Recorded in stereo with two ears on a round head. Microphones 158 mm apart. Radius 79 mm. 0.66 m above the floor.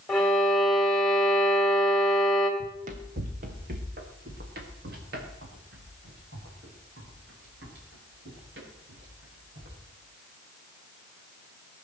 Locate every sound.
0.1 s a violin: 5° left (ahead or behind), 2.5 m
2.6 s running footsteps: 40° right (ahead or behind), 1.8 m; by 9.7 s 65° right (ahead or behind), 8 m